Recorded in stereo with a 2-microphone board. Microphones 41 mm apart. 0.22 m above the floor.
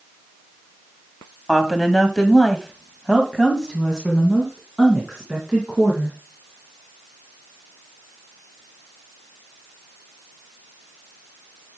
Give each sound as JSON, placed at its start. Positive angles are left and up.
{"t": 1.5, "sound": "a woman speaking", "side_deg": 10, "distance_m": 1.7}